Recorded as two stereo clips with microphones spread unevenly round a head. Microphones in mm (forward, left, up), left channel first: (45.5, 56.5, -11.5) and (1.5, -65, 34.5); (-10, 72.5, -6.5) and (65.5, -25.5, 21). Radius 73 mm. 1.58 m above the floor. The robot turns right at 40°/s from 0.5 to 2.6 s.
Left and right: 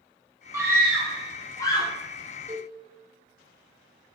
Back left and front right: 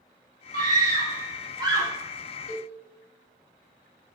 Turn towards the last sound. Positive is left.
turn(degrees=155)